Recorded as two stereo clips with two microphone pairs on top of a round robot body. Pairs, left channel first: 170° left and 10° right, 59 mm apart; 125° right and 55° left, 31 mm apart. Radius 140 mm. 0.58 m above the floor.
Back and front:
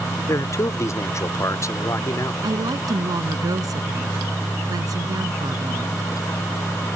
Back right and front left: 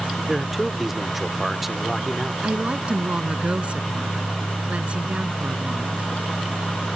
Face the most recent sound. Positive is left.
turn(degrees=10)